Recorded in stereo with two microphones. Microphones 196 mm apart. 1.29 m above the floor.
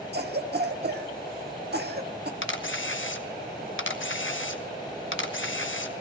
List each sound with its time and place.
0.1 s a cough: 55° right (ahead or behind), 1.5 m
2.4 s a camera shutter: 80° left, 1.1 m